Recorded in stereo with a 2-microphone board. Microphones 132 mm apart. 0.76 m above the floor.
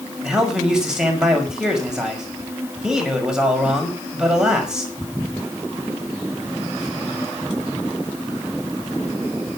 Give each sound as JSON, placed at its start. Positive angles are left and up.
{"t": 0.2, "sound": "a man speaking", "side_deg": -5, "distance_m": 5.5}